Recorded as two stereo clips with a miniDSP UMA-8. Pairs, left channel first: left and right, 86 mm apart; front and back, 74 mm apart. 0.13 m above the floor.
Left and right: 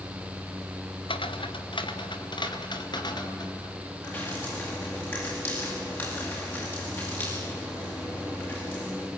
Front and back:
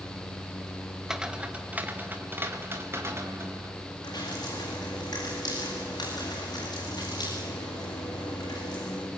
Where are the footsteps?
95° left, 1.8 m; by 3.7 s 125° left, 4.5 m.